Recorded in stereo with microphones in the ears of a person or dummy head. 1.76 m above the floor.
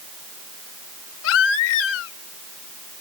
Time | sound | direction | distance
1.2 | a baby crying | 75° left (ahead or behind) | ?